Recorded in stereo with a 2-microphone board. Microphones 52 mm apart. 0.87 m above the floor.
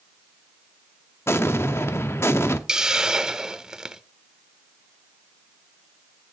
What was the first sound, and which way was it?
An explosion, 55° left (ahead or behind).